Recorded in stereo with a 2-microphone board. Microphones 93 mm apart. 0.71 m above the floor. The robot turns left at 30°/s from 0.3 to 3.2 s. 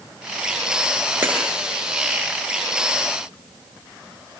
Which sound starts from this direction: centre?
Breaking glass, at 1.2 s.